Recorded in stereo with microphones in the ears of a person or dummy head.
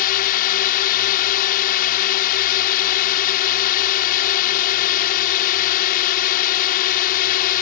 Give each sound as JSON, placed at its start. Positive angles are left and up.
{"t": 0.0, "sound": "a drone", "side_deg": 45}